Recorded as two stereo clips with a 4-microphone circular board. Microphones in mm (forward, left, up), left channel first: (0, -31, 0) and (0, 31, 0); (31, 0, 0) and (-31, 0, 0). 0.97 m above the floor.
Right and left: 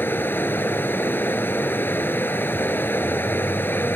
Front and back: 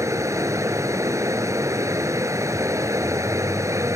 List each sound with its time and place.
0.0 s running water: 145° right